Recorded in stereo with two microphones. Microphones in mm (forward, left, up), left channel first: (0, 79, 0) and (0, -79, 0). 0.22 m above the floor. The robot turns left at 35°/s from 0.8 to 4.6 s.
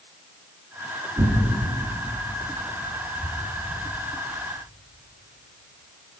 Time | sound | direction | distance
1.2 | tearing paper | 15° right (ahead or behind) | 2.5 m